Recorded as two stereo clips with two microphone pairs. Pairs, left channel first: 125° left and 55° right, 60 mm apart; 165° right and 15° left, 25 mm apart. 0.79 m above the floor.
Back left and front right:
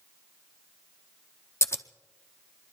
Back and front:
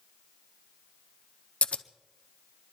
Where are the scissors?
165° left, 0.5 m.